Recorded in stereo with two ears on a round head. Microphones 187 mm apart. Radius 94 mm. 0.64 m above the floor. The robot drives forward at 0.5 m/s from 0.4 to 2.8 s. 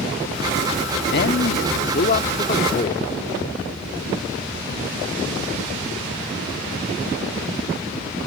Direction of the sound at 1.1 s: 55° left (ahead or behind).